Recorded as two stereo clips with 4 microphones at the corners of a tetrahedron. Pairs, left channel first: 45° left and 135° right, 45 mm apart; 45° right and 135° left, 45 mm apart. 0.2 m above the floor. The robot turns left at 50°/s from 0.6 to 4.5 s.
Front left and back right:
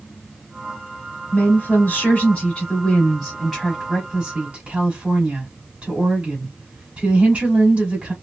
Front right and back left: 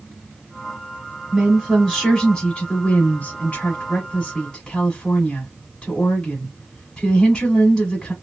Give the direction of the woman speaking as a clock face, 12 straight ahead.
10 o'clock.